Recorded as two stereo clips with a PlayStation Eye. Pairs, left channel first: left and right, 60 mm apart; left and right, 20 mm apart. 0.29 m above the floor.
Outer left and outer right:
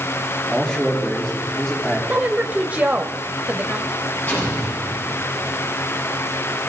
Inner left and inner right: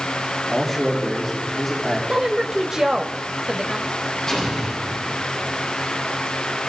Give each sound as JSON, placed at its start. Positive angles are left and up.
{"t": 0.5, "sound": "a man speaking", "side_deg": 15, "distance_m": 4.5}
{"t": 2.1, "sound": "a woman speaking", "side_deg": -25, "distance_m": 0.9}
{"t": 4.3, "sound": "an explosion", "side_deg": 35, "distance_m": 9.0}